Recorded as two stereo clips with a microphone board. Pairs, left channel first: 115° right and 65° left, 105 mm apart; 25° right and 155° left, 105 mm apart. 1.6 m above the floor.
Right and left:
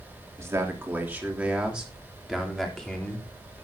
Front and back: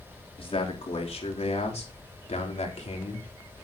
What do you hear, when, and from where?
0.4 s a man speaking: 5° left, 3.5 m; by 3.3 s 30° right, 4 m